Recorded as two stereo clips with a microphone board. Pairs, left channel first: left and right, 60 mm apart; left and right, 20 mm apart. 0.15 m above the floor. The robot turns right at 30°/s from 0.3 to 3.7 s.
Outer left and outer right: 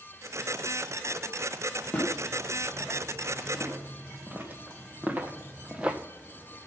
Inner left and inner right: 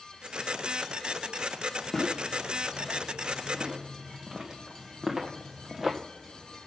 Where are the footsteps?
15° left (ahead or behind), 3.5 m; by 6.0 s 15° right (ahead or behind), 1.0 m.